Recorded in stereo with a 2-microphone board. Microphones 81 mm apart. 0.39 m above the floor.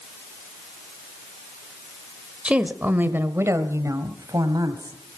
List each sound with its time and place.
2.5 s a woman speaking: 10° right (ahead or behind), 1.3 m; by 5.2 s 55° right (ahead or behind), 2 m